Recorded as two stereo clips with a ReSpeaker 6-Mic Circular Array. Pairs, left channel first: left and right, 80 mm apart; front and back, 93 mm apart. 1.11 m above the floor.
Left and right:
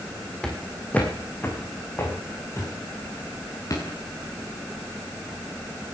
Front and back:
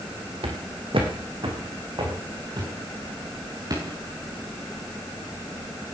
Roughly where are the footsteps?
Behind.